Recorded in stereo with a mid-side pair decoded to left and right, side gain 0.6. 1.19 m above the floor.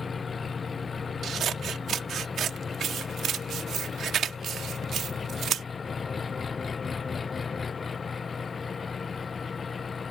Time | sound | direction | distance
0.0 | an engine running | 25° left | ?
1.2 | scissors | 50° right | ?